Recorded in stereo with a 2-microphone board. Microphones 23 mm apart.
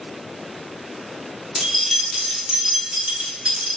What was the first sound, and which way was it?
Keys jangling, centre (ahead or behind).